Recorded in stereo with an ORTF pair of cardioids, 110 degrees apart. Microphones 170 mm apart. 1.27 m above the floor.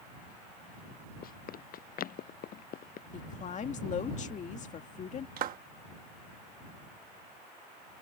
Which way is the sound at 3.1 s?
45° left.